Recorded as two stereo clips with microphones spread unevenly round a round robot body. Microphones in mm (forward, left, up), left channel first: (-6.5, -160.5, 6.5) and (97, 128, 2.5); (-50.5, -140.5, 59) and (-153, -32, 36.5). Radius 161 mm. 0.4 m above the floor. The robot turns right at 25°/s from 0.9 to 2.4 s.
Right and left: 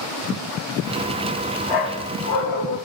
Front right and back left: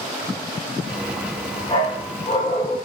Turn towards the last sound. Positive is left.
turn(degrees=-90)